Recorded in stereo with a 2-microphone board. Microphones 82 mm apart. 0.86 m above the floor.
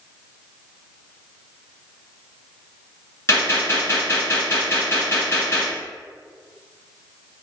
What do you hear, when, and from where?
3.3 s a gunshot: 35° left (ahead or behind), 1.8 m